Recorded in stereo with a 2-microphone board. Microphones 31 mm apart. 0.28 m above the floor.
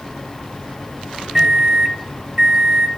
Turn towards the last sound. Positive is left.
turn(degrees=-10)  # may be behind; listen again after turning